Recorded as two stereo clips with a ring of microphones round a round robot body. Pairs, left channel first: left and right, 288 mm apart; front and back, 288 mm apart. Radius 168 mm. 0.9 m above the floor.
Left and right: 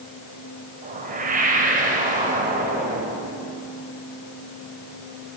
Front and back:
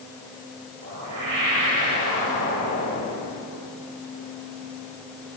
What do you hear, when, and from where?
0.8 s a whoosh: 150° right, 4.5 m